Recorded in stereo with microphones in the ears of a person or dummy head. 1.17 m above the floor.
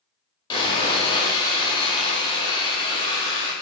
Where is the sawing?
30° left (ahead or behind), 1.9 m.